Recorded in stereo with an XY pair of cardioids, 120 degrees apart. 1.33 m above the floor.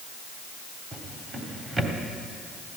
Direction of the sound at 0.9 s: 25° right.